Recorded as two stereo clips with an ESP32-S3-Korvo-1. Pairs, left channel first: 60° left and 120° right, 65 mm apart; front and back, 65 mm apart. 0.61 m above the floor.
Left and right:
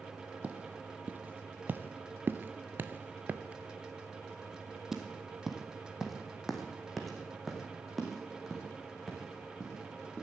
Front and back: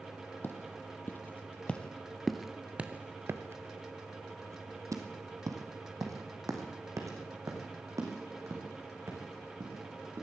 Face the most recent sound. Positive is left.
turn(degrees=150)